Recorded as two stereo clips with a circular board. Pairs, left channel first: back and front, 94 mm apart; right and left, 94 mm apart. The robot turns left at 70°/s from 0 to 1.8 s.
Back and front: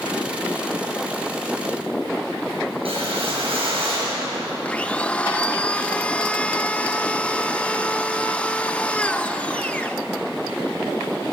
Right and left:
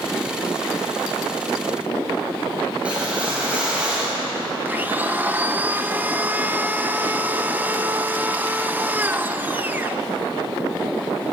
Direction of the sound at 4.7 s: 125° left.